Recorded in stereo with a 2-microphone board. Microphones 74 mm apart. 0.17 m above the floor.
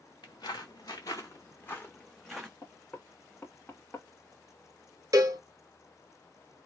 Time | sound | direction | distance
0.2 | footsteps | 70° left (ahead or behind) | 1.2 m
2.6 | knocking | 30° left (ahead or behind) | 0.9 m
5.1 | a cowbell | 50° right (ahead or behind) | 0.5 m